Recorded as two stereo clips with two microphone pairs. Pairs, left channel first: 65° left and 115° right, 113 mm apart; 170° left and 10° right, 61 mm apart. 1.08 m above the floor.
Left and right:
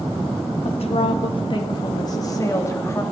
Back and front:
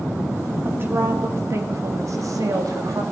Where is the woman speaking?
40° left, 2.0 m; by 3.0 s straight ahead, 2.5 m.